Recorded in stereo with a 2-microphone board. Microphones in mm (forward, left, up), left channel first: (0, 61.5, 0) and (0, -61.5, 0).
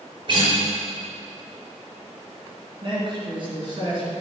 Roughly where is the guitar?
Right.